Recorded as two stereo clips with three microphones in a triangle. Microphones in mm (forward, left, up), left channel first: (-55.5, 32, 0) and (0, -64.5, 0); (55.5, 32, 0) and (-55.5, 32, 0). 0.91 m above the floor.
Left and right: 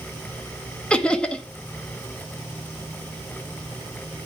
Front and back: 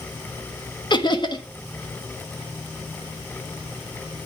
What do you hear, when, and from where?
0.9 s laughter: 40° left, 1.3 m